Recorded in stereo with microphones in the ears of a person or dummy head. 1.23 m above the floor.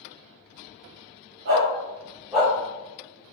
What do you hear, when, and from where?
1.4 s a dog barking: 50° right (ahead or behind), 1.0 m; by 2.5 s centre (ahead or behind), 1.2 m